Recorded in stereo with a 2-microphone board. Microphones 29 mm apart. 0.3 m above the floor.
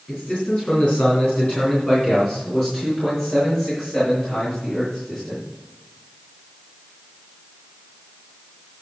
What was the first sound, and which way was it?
A man speaking, 50° left (ahead or behind).